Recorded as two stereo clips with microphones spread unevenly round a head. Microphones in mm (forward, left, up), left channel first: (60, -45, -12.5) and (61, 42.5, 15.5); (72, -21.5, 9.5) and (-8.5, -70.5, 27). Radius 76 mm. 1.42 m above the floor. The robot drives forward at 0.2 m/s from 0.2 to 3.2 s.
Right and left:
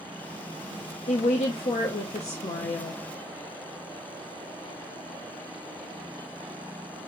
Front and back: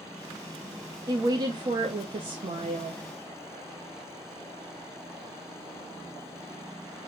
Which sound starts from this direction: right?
A woman speaking, at 1.1 s.